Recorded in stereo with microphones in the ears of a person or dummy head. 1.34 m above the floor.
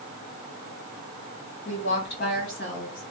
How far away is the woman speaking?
About 1.8 m.